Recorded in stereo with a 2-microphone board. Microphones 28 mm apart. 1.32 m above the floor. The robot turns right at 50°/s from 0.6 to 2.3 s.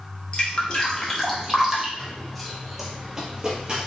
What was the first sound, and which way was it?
Dripping, 35° left (ahead or behind).